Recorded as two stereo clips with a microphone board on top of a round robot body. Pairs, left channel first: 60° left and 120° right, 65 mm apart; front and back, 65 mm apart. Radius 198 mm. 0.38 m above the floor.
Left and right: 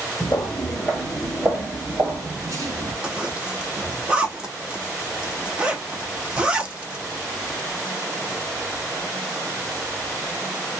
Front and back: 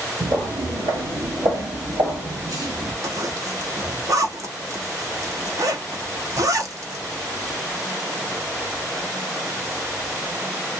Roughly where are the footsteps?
Behind left.